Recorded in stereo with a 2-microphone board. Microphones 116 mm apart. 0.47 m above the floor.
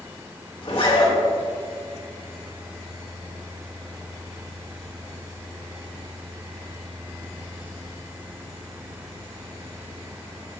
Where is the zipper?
45° left (ahead or behind), 1.9 m.